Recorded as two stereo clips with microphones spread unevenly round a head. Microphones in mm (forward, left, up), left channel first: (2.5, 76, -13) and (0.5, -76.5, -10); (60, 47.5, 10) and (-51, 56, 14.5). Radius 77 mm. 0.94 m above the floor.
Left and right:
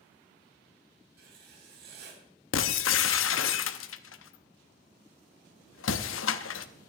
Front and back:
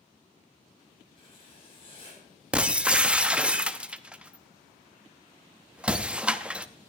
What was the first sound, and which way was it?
Writing, 60° right.